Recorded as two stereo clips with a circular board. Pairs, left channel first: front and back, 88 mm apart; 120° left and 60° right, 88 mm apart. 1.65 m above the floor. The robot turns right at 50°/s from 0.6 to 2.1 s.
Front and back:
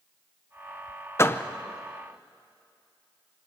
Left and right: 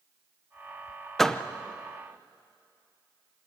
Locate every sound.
1.2 s a door slam: 35° left, 0.7 m; by 1.4 s 45° left, 0.7 m